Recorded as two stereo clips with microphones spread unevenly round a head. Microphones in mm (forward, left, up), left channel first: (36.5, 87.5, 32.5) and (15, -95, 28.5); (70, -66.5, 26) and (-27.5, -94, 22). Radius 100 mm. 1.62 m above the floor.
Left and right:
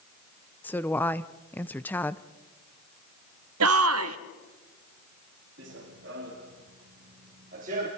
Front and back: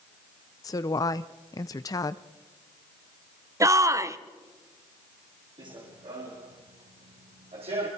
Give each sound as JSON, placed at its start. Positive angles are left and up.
{"t": 0.6, "sound": "a woman speaking", "azimuth_deg": 10, "distance_m": 0.6}
{"t": 3.6, "sound": "a shout", "azimuth_deg": -105, "distance_m": 1.3}
{"t": 5.6, "sound": "running footsteps", "azimuth_deg": -130, "distance_m": 4.5}